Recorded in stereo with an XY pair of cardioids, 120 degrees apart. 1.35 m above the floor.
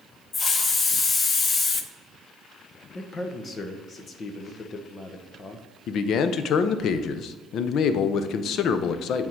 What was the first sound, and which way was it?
A hiss, 35° left.